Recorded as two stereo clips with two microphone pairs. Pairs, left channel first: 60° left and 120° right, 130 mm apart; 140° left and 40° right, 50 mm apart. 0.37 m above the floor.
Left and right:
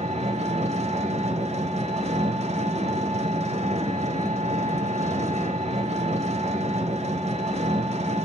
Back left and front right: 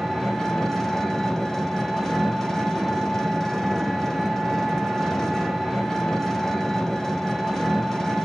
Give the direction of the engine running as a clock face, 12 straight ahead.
5 o'clock.